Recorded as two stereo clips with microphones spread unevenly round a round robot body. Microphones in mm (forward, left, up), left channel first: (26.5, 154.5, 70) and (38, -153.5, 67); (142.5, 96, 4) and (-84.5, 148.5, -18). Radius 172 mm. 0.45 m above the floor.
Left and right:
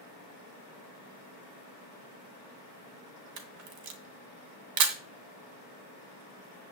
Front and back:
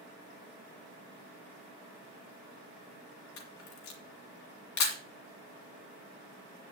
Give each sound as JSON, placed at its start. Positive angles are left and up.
{"t": 3.4, "sound": "a camera shutter", "azimuth_deg": -55, "distance_m": 1.9}